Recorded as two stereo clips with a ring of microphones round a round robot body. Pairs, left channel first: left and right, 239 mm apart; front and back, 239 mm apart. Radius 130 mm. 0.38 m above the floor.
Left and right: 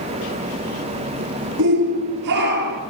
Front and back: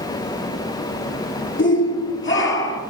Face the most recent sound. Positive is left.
turn(degrees=-35)